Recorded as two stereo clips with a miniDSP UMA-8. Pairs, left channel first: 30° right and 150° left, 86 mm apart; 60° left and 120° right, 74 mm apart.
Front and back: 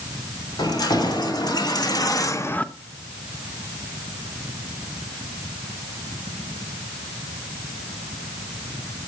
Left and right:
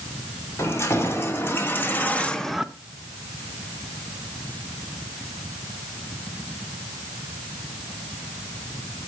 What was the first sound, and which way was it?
Keys jangling, 5° left.